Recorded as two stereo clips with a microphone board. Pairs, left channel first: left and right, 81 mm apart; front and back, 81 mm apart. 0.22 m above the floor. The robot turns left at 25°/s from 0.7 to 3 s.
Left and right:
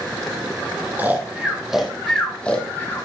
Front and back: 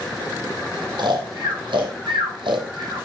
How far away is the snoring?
About 1.6 m.